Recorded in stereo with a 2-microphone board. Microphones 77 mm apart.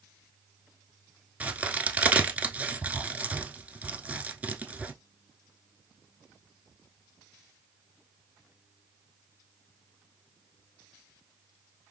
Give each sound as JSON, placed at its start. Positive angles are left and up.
{"t": 1.4, "sound": "a crack", "side_deg": -20, "distance_m": 0.8}